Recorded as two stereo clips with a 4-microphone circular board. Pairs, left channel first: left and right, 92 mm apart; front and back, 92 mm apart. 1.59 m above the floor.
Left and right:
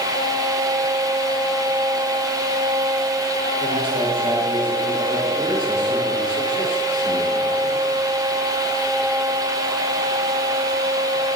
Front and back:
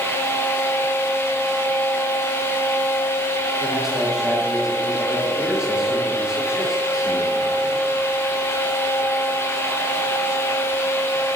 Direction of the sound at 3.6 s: 95° right.